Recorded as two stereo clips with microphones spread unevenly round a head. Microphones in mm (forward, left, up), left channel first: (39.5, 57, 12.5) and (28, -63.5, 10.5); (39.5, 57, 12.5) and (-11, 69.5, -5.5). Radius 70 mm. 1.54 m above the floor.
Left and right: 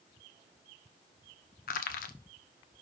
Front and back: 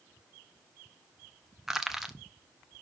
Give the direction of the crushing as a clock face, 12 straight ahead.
9 o'clock.